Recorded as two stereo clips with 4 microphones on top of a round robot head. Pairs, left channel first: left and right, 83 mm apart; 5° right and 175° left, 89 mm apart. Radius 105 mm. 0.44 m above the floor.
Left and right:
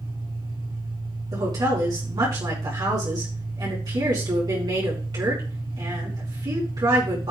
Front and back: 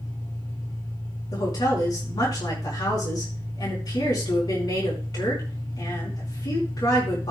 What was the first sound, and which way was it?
An engine running, 65° right.